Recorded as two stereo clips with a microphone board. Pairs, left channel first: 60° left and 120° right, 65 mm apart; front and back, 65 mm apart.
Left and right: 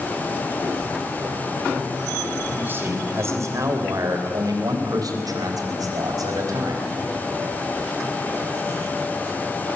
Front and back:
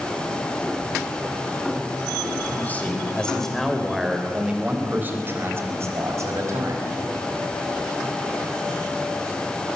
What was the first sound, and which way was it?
A man speaking, 65° right.